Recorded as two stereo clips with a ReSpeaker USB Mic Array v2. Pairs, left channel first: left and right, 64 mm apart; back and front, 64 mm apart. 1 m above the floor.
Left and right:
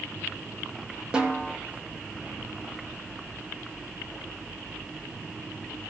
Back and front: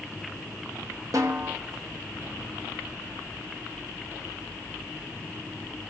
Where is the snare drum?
15° right, 1.1 m.